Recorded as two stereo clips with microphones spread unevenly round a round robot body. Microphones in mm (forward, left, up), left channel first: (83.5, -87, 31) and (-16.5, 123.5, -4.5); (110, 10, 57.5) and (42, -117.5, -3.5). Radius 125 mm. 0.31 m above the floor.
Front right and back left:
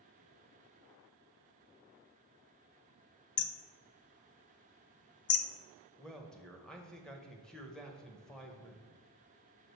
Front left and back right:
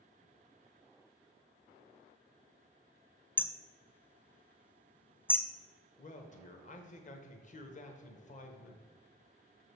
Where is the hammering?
20° right, 0.6 m.